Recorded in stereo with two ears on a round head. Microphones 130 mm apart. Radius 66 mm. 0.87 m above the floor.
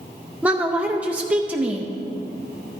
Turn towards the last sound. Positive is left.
turn(degrees=-10)  # may be behind; listen again after turning